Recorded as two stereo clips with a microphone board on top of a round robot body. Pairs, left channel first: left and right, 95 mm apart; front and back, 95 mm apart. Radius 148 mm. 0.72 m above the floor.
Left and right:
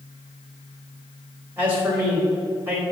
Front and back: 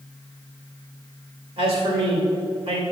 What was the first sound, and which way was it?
A man speaking, 160° right.